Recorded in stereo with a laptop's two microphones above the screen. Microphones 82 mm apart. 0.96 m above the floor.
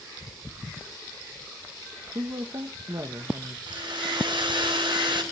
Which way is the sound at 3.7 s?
80° right.